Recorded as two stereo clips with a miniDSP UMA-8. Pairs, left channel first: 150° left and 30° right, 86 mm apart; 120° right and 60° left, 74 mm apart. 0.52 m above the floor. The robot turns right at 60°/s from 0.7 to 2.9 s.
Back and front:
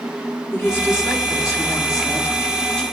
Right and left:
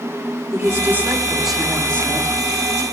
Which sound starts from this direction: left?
A woman speaking, at 0.5 s.